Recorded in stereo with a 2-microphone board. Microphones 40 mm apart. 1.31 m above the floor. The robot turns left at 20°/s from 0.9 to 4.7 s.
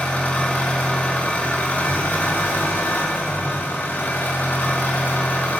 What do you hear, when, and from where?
0.0 s an engine running: 130° left, 3 m; by 5.6 s 55° left, 3 m